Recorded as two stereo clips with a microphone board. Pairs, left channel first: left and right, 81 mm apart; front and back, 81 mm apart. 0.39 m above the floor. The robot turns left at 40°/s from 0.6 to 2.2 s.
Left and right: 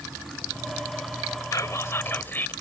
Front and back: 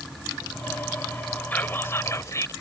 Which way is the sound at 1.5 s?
60° left.